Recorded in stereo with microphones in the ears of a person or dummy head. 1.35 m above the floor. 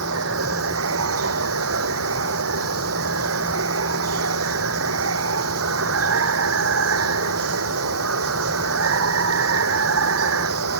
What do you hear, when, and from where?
0.0 s running water: 85° right